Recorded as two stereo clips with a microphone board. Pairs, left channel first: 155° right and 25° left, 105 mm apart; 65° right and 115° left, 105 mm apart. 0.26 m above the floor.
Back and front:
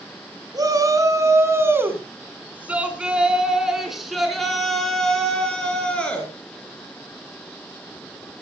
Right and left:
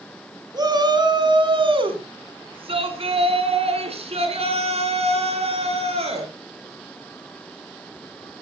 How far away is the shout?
About 2.5 m.